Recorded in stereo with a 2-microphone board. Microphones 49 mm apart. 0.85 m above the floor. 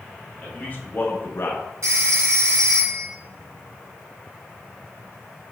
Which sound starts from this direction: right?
A phone ringing, at 1.8 s.